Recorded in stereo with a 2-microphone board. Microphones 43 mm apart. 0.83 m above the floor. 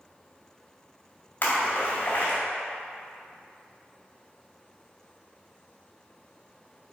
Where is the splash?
45° left (ahead or behind), 2 m.